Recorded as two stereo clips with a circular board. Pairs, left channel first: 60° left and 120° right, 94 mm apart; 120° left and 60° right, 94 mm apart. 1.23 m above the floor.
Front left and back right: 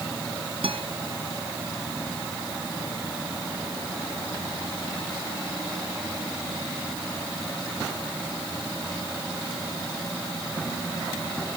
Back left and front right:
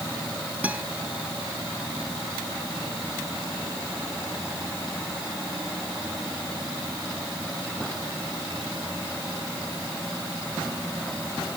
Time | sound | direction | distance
0.6 | a guitar | 135° right | ?